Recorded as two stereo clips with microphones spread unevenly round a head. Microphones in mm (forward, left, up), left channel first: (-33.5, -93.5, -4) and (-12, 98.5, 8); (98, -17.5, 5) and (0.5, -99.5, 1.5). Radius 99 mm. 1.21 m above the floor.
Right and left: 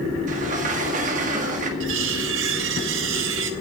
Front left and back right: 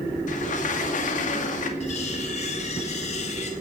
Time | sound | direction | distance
0.3 | a sliding door | 30° left | 2 m
1.8 | cutlery clinking | 90° left | 1.5 m